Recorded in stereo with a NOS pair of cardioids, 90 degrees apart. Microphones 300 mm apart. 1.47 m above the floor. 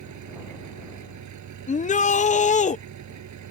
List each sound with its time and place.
0.0 s an engine running: 60° right
1.7 s a shout: 25° left